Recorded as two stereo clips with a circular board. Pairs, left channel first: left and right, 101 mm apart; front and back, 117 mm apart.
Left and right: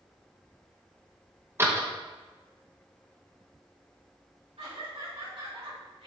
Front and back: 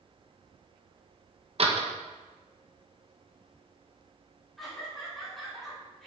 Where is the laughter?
90° right, 2.5 m.